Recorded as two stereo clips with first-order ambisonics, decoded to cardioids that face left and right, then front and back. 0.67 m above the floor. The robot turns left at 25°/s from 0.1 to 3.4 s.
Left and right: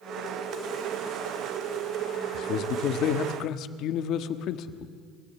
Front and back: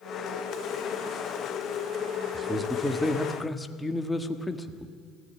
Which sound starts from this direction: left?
A man speaking, at 2.3 s.